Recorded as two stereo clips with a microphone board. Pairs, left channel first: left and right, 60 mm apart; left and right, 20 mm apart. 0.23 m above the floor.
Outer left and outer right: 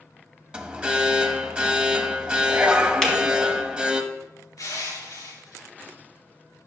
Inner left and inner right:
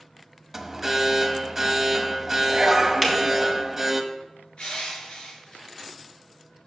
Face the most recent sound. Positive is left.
turn(degrees=70)  # may be behind; listen again after turning